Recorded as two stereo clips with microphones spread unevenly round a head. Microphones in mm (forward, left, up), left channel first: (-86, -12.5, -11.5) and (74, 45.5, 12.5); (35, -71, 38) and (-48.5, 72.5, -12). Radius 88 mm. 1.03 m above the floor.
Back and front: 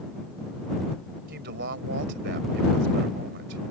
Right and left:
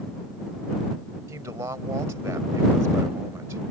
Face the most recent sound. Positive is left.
turn(degrees=45)